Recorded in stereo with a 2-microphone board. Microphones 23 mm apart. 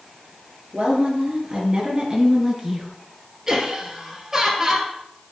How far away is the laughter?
About 2 m.